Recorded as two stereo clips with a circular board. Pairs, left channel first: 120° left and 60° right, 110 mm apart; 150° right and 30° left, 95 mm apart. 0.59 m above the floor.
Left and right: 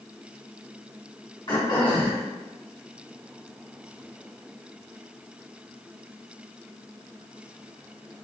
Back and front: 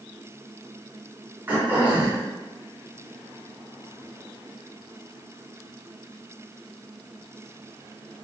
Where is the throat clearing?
95° left, 1.7 m.